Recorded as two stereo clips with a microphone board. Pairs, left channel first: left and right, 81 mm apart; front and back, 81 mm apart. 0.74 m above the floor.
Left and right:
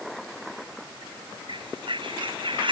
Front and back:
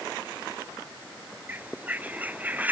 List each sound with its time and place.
1.5 s a bird: 110° right